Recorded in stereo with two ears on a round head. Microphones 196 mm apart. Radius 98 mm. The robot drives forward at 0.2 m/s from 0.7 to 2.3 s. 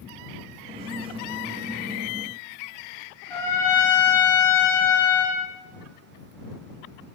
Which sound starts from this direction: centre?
A trumpet, at 3.3 s.